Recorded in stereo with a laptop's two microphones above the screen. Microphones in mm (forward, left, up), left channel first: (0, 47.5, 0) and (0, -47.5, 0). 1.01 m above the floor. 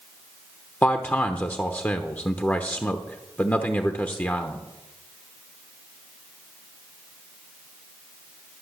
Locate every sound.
0.8 s a man speaking: 20° left (ahead or behind), 0.9 m